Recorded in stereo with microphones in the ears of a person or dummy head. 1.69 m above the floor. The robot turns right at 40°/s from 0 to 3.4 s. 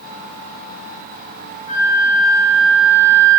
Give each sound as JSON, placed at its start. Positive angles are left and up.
{"t": 1.7, "sound": "a flute", "azimuth_deg": 140, "distance_m": 3.0}